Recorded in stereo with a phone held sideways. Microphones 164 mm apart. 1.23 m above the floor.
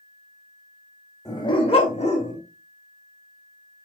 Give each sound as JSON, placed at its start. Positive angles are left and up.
{"t": 1.2, "sound": "a dog barking", "side_deg": 20, "distance_m": 1.5}